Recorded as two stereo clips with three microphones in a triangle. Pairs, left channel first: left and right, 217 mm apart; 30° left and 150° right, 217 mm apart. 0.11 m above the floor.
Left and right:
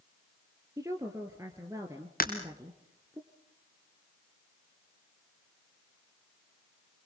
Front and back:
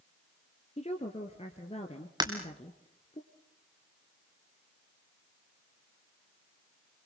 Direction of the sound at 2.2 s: 140° left.